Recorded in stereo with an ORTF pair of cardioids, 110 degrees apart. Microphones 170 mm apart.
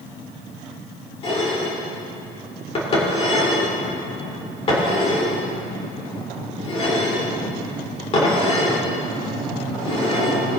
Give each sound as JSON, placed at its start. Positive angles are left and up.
{"t": 1.2, "sound": "dishes clattering", "azimuth_deg": 35, "distance_m": 3.5}